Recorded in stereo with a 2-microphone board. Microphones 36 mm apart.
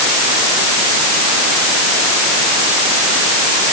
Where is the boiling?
I don't hear boiling.